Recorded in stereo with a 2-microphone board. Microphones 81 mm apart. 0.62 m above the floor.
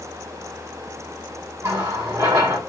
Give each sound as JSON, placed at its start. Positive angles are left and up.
{"t": 1.6, "sound": "a running tap", "side_deg": -40, "distance_m": 0.8}